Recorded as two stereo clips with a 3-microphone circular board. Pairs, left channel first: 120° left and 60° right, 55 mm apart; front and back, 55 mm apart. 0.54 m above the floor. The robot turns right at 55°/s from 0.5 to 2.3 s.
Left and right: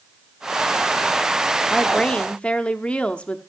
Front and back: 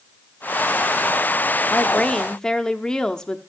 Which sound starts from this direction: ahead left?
A woman speaking, at 1.7 s.